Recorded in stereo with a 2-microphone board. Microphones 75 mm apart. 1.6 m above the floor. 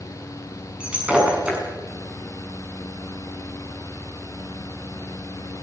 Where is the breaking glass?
15° right (ahead or behind), 6.5 m.